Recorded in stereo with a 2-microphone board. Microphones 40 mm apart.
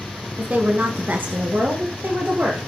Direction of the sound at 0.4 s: 40° right (ahead or behind).